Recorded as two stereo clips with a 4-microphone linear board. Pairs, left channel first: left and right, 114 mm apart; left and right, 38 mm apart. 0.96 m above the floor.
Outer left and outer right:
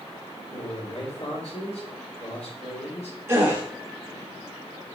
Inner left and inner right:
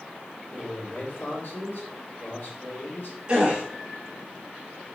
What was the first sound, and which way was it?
A man speaking, 65° left (ahead or behind).